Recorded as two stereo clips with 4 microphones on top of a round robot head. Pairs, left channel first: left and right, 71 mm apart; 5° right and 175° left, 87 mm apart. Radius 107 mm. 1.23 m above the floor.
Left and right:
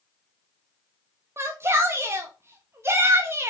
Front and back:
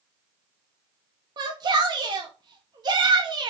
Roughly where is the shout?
Behind right.